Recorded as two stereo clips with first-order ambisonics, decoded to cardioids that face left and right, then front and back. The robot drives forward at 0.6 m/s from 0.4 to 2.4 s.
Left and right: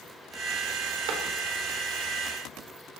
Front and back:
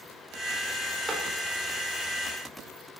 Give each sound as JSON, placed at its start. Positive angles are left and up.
{"t": 1.1, "sound": "a clap", "azimuth_deg": -105, "distance_m": 3.5}